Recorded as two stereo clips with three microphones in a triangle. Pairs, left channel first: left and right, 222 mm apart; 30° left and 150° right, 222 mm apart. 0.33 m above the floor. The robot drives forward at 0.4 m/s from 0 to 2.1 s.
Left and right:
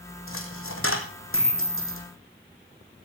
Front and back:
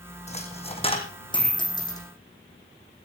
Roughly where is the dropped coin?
Left.